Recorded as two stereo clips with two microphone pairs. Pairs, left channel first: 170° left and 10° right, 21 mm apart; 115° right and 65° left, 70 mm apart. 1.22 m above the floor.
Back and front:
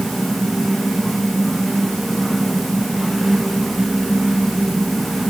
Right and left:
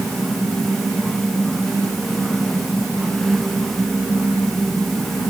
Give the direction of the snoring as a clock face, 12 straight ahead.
No snoring in this recording.